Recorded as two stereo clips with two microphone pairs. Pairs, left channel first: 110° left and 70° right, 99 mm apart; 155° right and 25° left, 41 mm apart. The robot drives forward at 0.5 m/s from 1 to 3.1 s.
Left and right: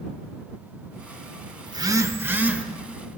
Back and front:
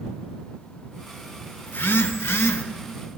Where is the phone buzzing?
120° right, 0.5 m; by 2.6 s 150° right, 0.9 m.